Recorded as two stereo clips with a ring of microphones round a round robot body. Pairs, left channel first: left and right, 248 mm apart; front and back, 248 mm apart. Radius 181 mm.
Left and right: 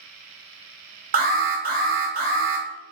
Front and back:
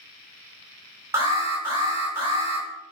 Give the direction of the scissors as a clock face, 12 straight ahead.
I don't hear scissors.